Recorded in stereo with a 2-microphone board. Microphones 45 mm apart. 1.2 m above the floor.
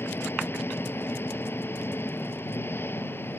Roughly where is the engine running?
Left.